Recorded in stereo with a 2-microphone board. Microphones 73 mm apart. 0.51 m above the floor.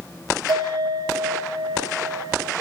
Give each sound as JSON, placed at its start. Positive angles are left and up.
{"t": 0.5, "sound": "a bell", "side_deg": -75, "distance_m": 4.5}